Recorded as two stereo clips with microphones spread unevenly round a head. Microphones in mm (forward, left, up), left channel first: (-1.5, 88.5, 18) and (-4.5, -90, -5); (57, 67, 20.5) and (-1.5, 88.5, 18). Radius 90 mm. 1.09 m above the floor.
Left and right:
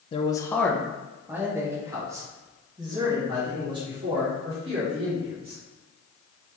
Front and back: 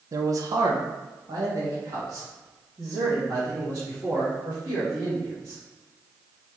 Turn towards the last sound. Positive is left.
turn(degrees=-150)